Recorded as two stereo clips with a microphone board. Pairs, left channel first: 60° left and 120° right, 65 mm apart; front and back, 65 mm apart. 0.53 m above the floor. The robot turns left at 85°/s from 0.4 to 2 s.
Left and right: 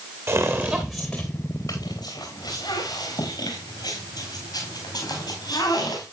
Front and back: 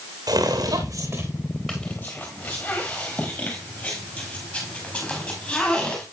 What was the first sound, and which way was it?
Footsteps, 165° right.